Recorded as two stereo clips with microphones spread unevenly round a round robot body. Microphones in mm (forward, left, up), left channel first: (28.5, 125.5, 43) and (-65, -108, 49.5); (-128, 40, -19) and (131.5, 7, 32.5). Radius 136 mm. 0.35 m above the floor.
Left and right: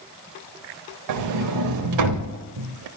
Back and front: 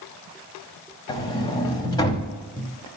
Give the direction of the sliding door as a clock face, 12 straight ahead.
4 o'clock.